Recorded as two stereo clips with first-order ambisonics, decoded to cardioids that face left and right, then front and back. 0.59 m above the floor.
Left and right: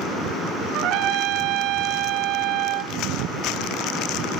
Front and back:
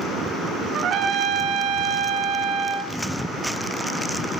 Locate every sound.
0.7 s a trumpet: 125° right, 1.2 m